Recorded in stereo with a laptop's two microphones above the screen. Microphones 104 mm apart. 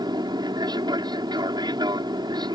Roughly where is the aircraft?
Right.